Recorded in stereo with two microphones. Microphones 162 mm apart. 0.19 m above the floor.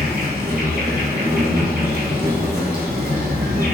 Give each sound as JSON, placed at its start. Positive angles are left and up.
{"t": 0.0, "sound": "an insect", "side_deg": -70, "distance_m": 0.9}